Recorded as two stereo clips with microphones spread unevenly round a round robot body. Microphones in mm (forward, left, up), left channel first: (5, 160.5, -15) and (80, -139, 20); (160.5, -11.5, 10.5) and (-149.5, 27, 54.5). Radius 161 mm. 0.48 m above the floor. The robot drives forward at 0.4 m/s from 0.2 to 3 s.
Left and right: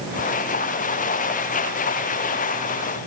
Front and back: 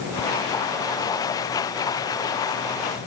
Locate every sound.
Only background noise.